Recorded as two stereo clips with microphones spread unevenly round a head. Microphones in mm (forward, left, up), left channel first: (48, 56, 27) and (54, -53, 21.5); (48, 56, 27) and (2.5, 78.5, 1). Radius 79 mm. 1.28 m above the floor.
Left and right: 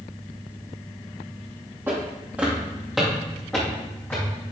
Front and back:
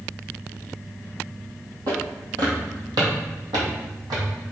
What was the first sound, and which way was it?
Footsteps, 160° right.